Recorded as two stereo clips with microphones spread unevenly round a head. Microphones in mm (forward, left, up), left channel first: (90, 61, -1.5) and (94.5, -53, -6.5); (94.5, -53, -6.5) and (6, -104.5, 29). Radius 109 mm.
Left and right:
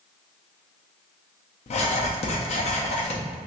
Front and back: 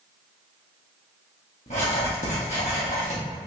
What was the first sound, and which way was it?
Writing, 90° left.